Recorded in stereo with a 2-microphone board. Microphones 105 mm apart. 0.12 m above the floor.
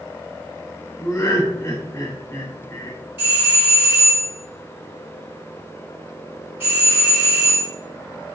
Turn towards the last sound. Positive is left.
turn(degrees=-20)  # may be behind; listen again after turning